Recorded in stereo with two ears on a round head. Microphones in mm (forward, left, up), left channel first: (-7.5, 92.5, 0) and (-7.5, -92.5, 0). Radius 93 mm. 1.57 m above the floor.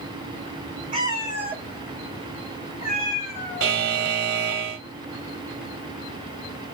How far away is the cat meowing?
About 1.4 m.